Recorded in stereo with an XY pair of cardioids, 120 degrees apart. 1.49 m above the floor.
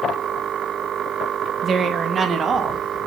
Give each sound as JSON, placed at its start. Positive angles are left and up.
{"t": 1.6, "sound": "a woman speaking", "azimuth_deg": -40, "distance_m": 1.4}